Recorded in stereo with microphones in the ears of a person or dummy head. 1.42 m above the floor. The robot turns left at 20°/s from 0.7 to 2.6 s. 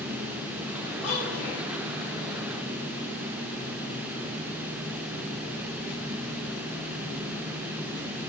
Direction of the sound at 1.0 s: 60° left (ahead or behind).